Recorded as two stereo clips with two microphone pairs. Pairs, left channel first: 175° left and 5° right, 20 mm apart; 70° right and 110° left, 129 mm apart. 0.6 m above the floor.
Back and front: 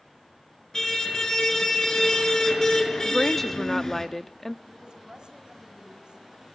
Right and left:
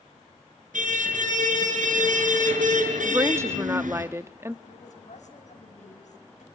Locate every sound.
0.7 s a car horn: 105° left, 5.5 m
3.0 s a woman speaking: 130° left, 0.7 m
4.7 s a woman speaking: 50° right, 4.5 m